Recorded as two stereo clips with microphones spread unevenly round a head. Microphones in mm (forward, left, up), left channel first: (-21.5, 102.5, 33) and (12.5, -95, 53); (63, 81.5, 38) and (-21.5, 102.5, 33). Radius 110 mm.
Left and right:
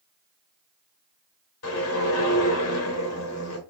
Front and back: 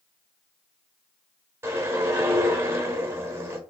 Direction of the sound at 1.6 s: 100° left.